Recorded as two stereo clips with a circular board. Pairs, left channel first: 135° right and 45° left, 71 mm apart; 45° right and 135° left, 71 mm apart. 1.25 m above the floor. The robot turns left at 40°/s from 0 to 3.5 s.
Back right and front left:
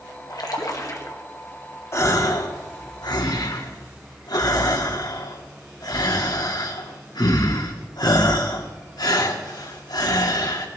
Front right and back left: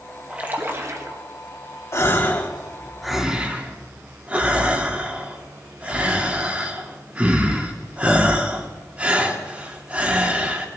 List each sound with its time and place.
0.3 s a splash: 155° right, 1.7 m; by 1.2 s 170° left, 1.7 m
1.9 s a gasp: 90° right, 1.7 m; by 10.7 s 155° right, 1.7 m